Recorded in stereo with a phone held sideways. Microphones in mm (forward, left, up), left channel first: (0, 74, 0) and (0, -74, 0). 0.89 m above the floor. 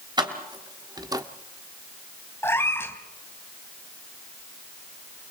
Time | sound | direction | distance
0.2 | keys jangling | 30° right (ahead or behind) | 3 m
2.4 | a cat meowing | 15° left (ahead or behind) | 2 m